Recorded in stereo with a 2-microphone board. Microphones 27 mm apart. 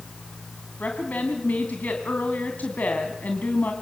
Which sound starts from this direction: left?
A woman speaking, at 0.8 s.